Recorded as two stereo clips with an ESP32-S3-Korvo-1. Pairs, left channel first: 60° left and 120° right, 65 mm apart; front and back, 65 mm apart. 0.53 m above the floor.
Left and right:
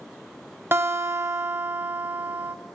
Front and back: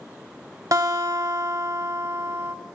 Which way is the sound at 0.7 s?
170° right.